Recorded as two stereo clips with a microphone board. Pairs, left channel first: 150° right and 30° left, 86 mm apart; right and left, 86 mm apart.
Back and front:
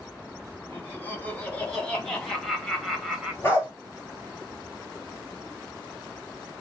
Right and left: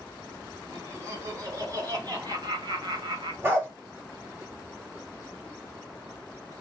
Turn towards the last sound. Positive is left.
turn(degrees=150)